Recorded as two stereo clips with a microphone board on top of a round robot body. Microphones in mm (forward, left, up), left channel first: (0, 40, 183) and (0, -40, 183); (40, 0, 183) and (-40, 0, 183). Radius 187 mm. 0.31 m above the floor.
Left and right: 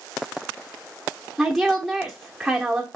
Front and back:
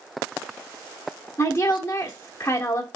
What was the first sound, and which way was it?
A woman speaking, straight ahead.